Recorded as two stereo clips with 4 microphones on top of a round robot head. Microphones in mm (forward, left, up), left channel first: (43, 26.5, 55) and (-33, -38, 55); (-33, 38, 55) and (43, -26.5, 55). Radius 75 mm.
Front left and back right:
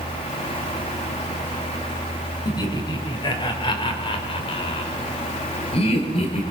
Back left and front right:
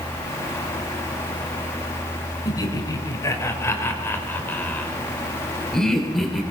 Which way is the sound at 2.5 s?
90° left.